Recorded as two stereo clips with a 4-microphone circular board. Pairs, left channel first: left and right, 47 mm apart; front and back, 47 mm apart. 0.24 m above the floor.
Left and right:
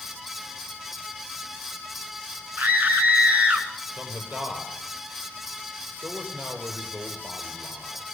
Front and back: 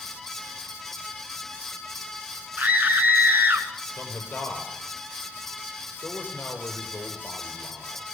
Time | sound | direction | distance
2.6 | a scream | 130° right | 3 m
4.0 | a man speaking | 50° right | 7 m